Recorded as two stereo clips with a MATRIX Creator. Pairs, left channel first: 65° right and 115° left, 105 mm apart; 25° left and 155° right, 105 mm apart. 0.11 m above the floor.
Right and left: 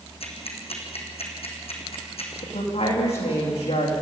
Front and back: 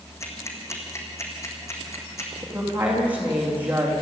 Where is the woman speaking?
85° right, 7.5 m.